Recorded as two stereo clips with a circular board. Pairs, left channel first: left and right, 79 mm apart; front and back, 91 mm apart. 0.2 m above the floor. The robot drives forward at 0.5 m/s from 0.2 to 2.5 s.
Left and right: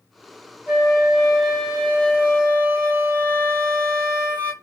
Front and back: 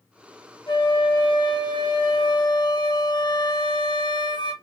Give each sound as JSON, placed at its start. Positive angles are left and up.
{"t": 0.7, "sound": "a flute", "azimuth_deg": -10, "distance_m": 2.5}